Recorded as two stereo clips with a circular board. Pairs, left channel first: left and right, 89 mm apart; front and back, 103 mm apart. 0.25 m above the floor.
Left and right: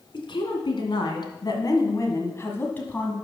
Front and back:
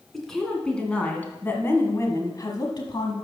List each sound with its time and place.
0.1 s a woman speaking: 90° left, 2 m; by 3.1 s 20° left, 1.5 m